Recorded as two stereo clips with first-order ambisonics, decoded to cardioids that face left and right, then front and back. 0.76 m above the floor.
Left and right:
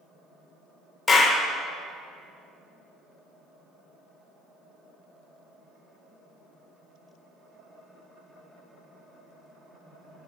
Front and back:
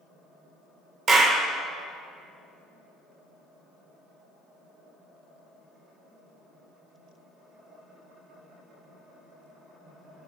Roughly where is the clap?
Behind left.